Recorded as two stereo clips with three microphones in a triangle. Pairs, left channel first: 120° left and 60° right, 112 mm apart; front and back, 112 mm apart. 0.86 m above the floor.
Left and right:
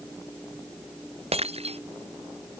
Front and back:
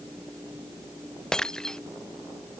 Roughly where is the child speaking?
No child speaking in this recording.